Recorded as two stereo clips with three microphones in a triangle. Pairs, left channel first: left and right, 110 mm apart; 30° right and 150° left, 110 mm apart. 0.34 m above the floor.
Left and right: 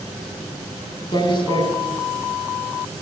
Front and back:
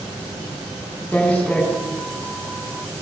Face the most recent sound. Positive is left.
turn(degrees=45)